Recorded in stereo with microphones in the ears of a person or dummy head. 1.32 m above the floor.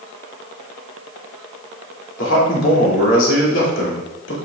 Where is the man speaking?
75° left (ahead or behind), 2.5 m.